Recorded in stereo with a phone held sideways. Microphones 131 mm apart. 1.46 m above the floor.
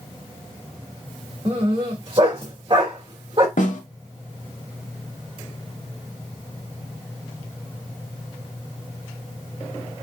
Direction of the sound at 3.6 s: 80° left.